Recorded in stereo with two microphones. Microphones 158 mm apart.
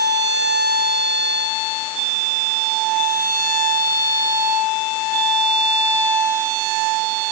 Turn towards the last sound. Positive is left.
No sound to turn to.